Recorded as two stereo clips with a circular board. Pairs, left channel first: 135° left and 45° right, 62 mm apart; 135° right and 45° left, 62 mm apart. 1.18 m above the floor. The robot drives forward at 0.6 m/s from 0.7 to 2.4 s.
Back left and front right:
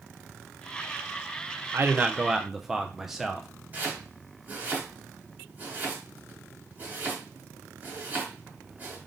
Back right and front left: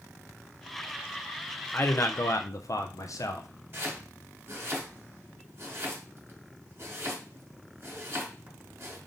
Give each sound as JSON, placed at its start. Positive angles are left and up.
{"t": 1.7, "sound": "a man speaking", "azimuth_deg": -80, "distance_m": 0.5}
{"t": 3.7, "sound": "chopping", "azimuth_deg": 10, "distance_m": 1.5}